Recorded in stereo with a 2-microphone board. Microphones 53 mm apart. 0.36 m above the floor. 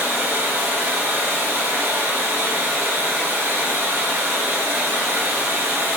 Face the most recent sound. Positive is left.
turn(degrees=-50)  # may be behind; listen again after turning